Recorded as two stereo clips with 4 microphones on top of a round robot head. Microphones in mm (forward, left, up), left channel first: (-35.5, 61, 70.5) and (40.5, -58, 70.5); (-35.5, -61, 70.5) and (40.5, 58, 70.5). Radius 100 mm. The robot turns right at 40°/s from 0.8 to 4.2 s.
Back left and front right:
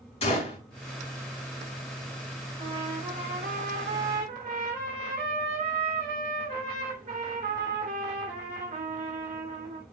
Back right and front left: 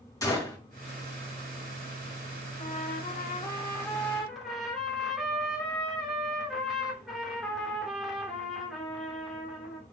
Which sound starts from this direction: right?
A trumpet, at 2.6 s.